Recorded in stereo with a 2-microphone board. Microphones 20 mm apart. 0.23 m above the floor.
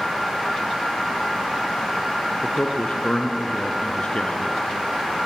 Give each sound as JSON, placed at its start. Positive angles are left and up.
{"t": 2.4, "sound": "a man speaking", "side_deg": 50, "distance_m": 3.0}